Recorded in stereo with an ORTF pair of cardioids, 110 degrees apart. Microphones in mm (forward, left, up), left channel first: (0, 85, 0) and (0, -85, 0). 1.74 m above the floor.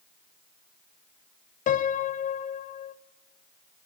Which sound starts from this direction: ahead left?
A piano, at 1.7 s.